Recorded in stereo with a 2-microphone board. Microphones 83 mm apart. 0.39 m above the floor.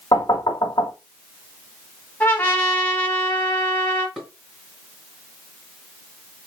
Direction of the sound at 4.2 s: Centre (ahead or behind).